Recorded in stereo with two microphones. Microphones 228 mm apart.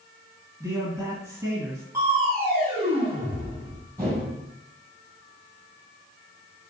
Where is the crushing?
15° right (ahead or behind), 2 m.